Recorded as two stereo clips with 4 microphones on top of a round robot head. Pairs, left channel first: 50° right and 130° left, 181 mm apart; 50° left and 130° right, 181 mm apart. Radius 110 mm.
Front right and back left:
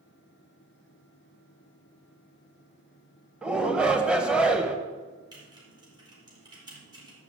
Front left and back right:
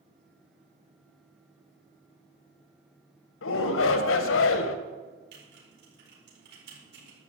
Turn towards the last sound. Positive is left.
turn(degrees=-160)